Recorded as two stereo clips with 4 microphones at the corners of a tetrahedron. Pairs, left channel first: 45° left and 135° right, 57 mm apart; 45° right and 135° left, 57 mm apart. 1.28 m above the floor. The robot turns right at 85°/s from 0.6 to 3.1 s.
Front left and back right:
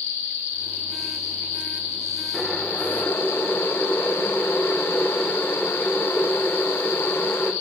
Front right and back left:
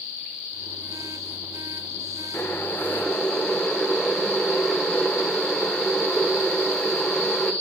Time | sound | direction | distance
2.3 | boiling | 35° right | 1.2 m